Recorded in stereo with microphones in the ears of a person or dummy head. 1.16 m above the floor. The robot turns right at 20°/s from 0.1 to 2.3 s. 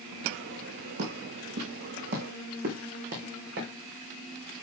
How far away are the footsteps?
About 4.5 m.